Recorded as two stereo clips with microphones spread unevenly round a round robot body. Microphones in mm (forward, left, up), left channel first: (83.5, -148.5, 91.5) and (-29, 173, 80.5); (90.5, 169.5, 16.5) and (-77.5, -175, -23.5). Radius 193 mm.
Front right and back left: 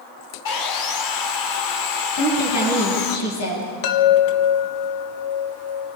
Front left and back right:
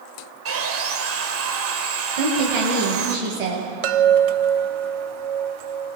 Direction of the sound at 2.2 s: 125° right.